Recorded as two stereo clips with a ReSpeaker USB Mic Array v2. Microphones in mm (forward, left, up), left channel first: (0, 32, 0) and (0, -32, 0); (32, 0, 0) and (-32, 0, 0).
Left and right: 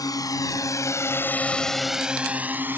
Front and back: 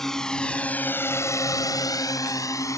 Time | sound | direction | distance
0.0 | a drone | 85° left | ?